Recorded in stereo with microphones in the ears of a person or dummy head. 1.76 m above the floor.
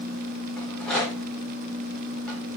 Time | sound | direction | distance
0.6 | a rattle | centre (ahead or behind) | 1.4 m